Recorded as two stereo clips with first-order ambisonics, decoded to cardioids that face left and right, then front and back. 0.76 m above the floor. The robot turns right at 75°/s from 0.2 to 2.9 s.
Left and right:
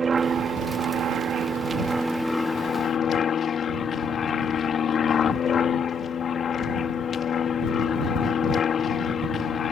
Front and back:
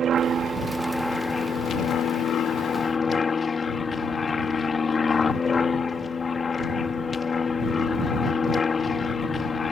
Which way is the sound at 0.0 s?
145° right.